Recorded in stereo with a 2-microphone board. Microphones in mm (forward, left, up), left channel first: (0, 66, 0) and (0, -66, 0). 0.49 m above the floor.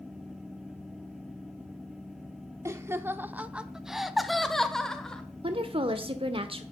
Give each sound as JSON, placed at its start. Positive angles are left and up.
{"t": 2.6, "sound": "laughter", "side_deg": -20, "distance_m": 0.8}
{"t": 5.4, "sound": "a woman speaking", "side_deg": -45, "distance_m": 1.0}